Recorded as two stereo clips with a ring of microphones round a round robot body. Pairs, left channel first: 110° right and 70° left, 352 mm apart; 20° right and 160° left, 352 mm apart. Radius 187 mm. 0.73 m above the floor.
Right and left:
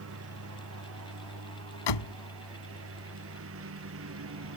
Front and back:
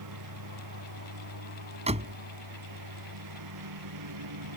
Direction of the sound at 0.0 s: 120° left.